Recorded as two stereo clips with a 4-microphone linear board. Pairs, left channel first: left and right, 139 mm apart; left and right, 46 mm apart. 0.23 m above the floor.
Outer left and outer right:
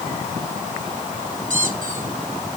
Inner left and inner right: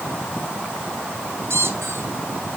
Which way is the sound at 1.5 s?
70° right (ahead or behind).